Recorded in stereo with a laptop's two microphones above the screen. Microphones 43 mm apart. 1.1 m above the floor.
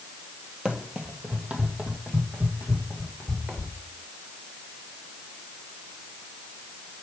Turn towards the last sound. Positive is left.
turn(degrees=-30)  # may be behind; listen again after turning